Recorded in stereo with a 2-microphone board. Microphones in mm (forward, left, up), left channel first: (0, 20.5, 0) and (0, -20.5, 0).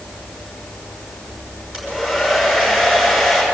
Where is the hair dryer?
15° right (ahead or behind), 5.5 m.